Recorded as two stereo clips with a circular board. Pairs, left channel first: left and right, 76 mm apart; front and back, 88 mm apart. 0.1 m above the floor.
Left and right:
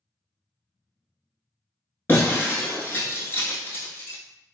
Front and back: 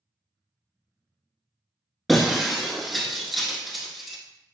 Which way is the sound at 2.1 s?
90° left.